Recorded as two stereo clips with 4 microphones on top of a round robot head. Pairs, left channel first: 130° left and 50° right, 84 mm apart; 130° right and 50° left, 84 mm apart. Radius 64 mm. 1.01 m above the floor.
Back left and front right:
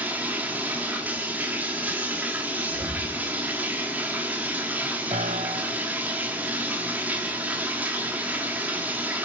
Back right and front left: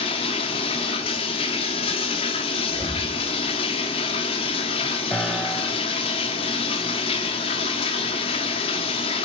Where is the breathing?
115° right, 6 m.